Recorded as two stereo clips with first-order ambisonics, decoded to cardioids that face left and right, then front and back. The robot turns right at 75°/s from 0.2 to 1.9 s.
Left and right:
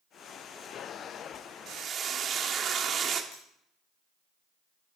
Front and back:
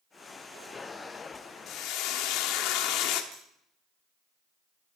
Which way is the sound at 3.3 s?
135° left.